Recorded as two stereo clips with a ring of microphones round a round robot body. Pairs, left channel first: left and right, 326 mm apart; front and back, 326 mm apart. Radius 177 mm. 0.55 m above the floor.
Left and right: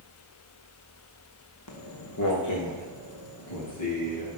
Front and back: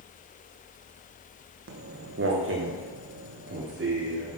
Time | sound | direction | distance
1.7 | footsteps | 130° left | 2 m